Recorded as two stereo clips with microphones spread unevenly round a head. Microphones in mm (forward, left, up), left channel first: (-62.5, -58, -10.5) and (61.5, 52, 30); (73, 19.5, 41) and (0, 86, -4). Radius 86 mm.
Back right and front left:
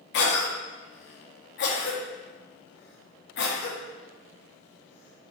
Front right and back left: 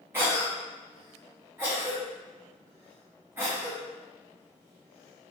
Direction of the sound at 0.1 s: 155° right.